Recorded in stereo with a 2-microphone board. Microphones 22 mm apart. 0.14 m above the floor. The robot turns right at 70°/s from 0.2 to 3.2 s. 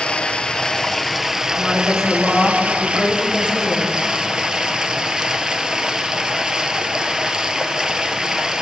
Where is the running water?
120° left, 1.1 m; by 8.6 s 30° right, 1.1 m.